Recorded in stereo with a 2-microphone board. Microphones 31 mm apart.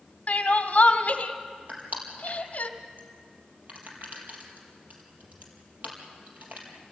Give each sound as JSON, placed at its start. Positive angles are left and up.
{"t": 0.3, "sound": "crying", "side_deg": 50, "distance_m": 1.4}
{"t": 1.7, "sound": "crushing", "side_deg": -60, "distance_m": 4.5}